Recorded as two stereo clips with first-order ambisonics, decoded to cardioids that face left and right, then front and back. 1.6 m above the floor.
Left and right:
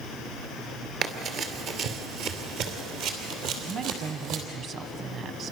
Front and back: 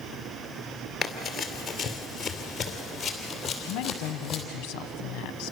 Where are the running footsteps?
75° right, 1.9 m.